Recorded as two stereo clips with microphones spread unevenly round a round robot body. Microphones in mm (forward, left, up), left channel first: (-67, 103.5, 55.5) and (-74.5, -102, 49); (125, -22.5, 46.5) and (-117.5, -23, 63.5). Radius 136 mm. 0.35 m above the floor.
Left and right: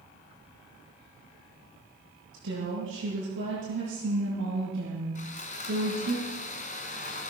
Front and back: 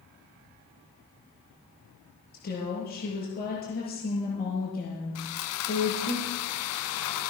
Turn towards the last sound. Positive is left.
turn(degrees=25)